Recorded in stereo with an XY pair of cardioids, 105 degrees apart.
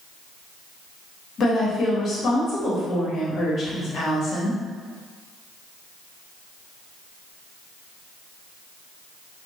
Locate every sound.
1.4 s a woman speaking: 55° left, 1.2 m